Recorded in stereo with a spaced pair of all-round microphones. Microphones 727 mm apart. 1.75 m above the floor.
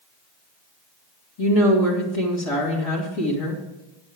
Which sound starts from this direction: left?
A woman speaking, at 1.4 s.